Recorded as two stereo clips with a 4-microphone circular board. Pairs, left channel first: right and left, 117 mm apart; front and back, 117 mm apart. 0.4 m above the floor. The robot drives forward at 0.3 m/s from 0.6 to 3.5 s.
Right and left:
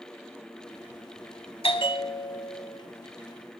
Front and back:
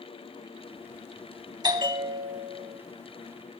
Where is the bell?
130° right, 0.6 m; by 2.8 s 145° right, 0.9 m.